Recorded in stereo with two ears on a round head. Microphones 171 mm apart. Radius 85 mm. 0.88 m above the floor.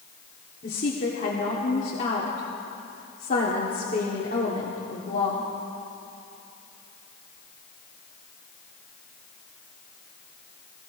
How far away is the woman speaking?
About 2 m.